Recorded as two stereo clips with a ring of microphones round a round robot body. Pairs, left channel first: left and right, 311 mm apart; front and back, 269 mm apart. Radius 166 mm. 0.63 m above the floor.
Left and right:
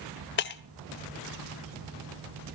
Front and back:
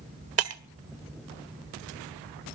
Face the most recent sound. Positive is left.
turn(degrees=145)